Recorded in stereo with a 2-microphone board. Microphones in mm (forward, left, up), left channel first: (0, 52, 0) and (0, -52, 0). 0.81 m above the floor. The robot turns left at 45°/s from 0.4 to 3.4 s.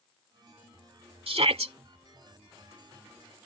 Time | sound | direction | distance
1.3 | a shout | 65° right (ahead or behind) | ?